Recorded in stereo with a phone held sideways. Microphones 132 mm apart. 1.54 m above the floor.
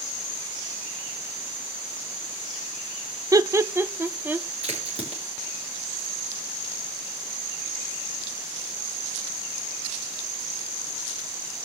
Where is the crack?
50° right (ahead or behind), 6 m.